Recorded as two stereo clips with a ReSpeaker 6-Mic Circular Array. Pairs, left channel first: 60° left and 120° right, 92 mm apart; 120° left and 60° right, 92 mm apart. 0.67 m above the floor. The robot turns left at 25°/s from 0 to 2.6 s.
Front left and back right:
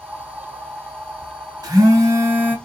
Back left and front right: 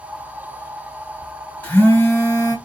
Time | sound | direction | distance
1.6 | a phone buzzing | 165° right | 2.5 m